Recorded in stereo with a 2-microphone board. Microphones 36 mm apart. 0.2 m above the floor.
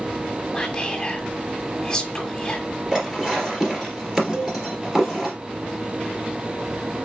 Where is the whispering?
20° left (ahead or behind), 1.5 m.